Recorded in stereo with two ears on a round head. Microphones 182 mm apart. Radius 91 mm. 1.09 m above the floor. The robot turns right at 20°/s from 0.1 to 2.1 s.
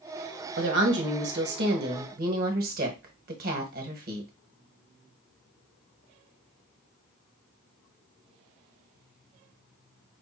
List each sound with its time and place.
0.6 s a woman speaking: 85° right, 1.1 m; by 4.3 s 55° right, 1.1 m